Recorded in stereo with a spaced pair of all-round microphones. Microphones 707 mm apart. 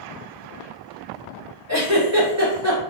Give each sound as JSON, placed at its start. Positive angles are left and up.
{"t": 1.7, "sound": "a giggle", "side_deg": -20, "distance_m": 1.7}